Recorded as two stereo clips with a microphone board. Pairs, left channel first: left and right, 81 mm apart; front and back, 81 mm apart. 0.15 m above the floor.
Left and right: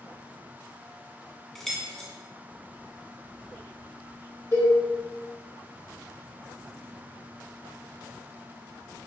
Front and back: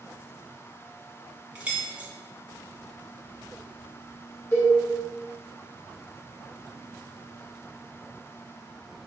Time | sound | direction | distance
1.6 | keys jangling | 165° left | 0.7 m
4.5 | a cowbell | 60° left | 1.8 m